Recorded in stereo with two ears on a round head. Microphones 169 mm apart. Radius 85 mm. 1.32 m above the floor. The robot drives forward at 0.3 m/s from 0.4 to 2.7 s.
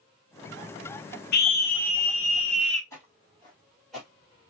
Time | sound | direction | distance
1.3 | a scream | 55° left (ahead or behind) | 0.8 m
2.9 | footsteps | 15° left (ahead or behind) | 2 m